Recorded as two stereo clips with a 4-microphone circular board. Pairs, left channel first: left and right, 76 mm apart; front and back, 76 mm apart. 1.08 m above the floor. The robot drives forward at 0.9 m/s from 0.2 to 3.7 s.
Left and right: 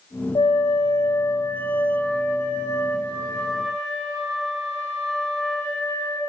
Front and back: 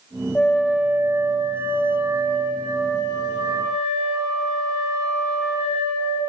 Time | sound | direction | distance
0.3 | a flute | 75° left | 0.7 m